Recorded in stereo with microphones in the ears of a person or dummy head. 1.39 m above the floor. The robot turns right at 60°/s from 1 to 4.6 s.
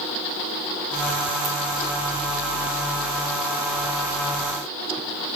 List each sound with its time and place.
1.4 s a ringtone: 30° right (ahead or behind), 0.8 m